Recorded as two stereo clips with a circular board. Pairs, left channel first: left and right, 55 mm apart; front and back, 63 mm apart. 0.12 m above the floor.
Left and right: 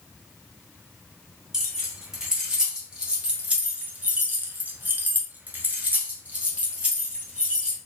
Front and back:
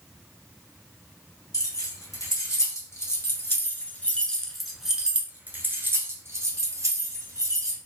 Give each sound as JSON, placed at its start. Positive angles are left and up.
{"t": 1.5, "sound": "keys jangling", "azimuth_deg": -10, "distance_m": 1.8}